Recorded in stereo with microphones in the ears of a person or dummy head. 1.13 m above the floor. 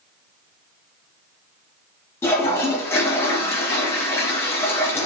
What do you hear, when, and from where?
2.2 s a toilet flushing: 15° left (ahead or behind), 0.7 m